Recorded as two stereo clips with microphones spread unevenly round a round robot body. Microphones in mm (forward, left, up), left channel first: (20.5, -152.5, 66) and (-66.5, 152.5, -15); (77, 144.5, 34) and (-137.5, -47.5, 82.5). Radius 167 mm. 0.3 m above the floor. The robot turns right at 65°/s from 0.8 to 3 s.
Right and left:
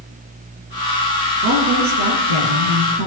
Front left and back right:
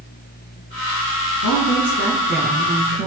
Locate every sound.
1.4 s a woman speaking: 45° left, 6 m; by 3.1 s 150° left, 6 m